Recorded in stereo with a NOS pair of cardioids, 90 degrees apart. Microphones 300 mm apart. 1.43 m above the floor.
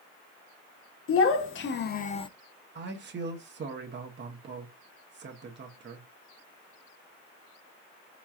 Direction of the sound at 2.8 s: 35° right.